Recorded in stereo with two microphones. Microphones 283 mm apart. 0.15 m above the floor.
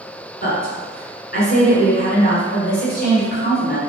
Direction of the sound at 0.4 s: 30° left (ahead or behind).